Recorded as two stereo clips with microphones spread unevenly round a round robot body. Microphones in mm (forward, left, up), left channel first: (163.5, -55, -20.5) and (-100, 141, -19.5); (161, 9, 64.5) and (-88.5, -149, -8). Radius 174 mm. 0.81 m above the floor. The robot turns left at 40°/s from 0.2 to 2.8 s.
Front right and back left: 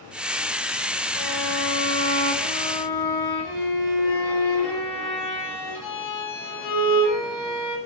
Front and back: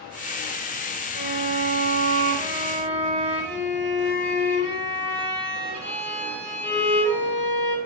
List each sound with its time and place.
1.1 s a violin: 10° left, 5.5 m; by 7.8 s 60° right, 5.5 m